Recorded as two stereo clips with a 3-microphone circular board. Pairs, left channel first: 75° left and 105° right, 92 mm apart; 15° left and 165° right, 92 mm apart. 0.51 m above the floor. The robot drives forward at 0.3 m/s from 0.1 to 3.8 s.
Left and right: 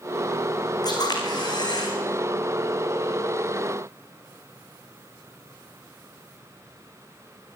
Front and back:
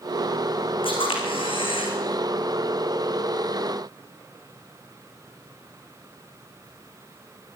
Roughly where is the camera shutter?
Ahead left.